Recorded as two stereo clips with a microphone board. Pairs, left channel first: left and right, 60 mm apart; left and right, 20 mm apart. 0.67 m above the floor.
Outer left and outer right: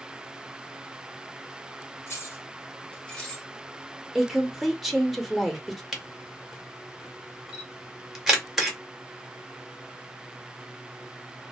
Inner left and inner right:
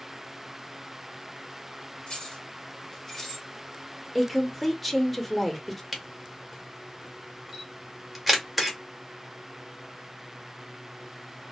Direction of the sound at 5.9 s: 5° right (ahead or behind).